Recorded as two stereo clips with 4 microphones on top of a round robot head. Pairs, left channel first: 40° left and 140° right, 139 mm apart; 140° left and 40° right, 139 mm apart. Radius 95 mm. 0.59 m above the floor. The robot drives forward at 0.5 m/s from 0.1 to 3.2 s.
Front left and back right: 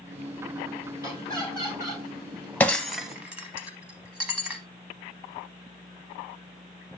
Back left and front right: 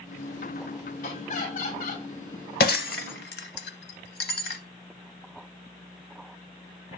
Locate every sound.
1.0 s laughter: 155° left, 3 m; by 2.0 s 160° left, 3.5 m
2.6 s breaking glass: 120° left, 0.7 m; by 4.6 s 140° left, 0.9 m